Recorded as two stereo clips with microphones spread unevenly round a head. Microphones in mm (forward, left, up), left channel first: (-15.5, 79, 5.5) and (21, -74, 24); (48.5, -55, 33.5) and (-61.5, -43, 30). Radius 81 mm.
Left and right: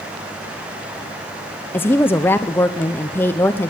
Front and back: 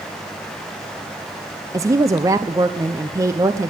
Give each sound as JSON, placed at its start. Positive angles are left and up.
{"t": 1.7, "sound": "a woman speaking", "azimuth_deg": 180, "distance_m": 0.5}